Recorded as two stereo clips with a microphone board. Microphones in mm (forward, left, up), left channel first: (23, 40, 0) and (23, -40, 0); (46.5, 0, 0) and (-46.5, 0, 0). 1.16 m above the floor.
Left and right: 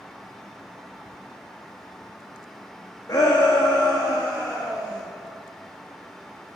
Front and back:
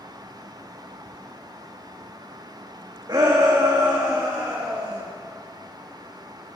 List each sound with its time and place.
3.1 s a shout: 135° left, 1.4 m